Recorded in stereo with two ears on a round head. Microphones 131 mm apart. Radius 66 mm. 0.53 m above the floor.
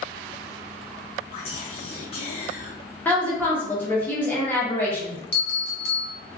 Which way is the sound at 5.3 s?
75° left (ahead or behind).